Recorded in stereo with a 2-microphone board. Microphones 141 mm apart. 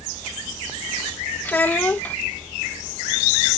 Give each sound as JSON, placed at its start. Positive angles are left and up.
{"t": 1.4, "sound": "a child speaking", "side_deg": 10}